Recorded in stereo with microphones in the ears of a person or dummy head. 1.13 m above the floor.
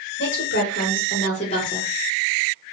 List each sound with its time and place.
0.2 s a woman speaking: 60° left (ahead or behind), 1.2 m; by 1.9 s 15° left (ahead or behind), 0.8 m